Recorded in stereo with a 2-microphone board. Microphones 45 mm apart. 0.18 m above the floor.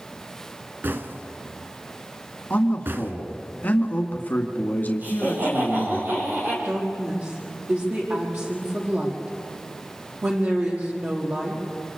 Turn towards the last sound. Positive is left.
turn(degrees=-45)  # may be behind; listen again after turning